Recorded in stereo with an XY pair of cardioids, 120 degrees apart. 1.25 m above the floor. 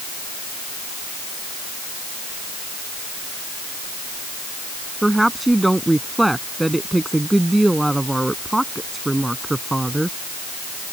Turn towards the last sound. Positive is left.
turn(degrees=-5)